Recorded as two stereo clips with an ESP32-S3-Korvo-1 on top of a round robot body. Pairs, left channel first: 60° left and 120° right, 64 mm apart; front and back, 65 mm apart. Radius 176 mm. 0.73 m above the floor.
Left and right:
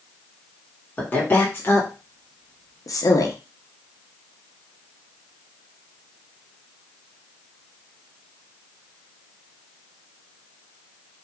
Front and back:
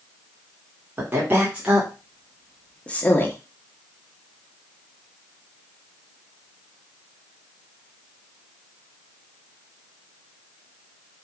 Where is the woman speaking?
120° left, 2 m; by 3.4 s 50° left, 1.4 m.